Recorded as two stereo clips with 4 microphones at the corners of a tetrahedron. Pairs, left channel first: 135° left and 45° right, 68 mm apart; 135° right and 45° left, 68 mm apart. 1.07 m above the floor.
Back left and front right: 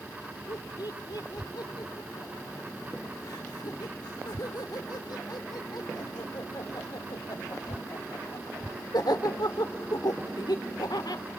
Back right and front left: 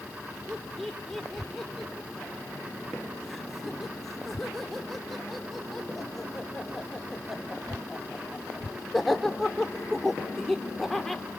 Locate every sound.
0.5 s laughter: 135° left, 3 m